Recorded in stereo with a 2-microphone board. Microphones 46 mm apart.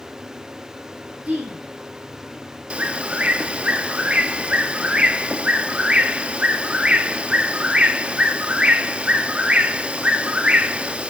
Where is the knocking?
No knocking in this recording.